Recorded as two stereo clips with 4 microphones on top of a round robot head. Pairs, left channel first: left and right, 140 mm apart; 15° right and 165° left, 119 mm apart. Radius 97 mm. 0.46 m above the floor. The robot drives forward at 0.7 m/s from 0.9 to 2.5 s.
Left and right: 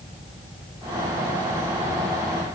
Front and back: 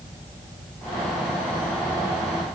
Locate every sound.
Only background noise.